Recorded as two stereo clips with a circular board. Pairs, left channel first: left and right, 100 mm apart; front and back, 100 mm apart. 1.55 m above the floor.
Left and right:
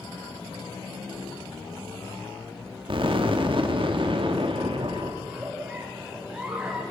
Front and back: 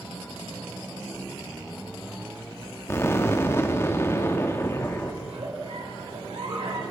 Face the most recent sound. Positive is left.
turn(degrees=-170)